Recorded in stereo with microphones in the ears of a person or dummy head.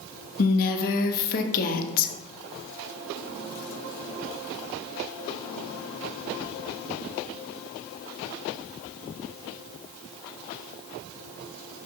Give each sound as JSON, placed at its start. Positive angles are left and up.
{"t": 0.4, "sound": "a woman speaking", "side_deg": 45, "distance_m": 0.6}